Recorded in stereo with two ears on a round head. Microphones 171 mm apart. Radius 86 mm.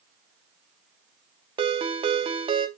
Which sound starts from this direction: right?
A ringtone, at 1.6 s.